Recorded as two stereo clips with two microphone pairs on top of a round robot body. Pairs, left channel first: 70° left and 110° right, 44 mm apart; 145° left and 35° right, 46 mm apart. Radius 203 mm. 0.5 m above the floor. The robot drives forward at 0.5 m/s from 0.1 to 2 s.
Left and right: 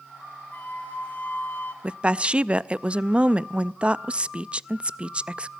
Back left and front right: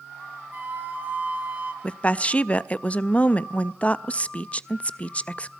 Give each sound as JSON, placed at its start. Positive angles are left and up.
{"t": 0.5, "sound": "a flute", "azimuth_deg": 15, "distance_m": 3.0}
{"t": 1.8, "sound": "a woman speaking", "azimuth_deg": -155, "distance_m": 0.7}